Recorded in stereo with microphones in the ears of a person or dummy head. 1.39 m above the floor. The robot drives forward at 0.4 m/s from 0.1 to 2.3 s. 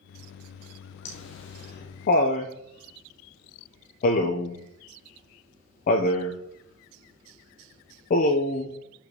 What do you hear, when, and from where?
1.1 s laughter: 60° left (ahead or behind), 0.8 m; by 8.7 s 45° left (ahead or behind), 1.0 m